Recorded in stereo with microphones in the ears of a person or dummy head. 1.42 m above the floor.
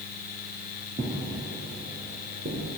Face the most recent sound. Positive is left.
turn(degrees=-45)  # may be behind; listen again after turning